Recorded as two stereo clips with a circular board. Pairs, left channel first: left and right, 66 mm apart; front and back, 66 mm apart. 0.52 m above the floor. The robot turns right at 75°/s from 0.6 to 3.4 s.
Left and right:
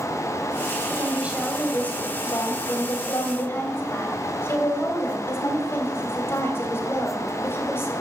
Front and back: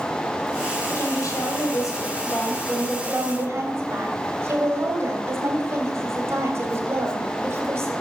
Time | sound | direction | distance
0.9 | a woman speaking | 50° right | 3 m